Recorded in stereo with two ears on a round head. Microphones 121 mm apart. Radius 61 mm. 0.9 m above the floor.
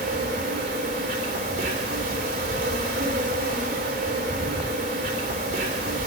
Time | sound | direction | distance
0.0 | an insect | 65° right (ahead or behind) | 3.5 m